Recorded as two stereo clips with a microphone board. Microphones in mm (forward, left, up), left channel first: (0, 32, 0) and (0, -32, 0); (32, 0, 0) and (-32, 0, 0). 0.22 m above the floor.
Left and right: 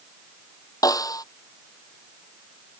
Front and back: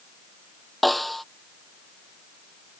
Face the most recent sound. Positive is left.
turn(degrees=90)